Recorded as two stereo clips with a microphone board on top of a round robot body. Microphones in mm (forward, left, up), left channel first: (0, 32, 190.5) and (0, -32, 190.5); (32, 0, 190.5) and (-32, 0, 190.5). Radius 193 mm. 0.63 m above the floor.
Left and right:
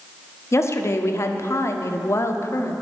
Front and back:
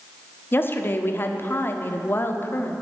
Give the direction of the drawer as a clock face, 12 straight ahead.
I don't hear a drawer.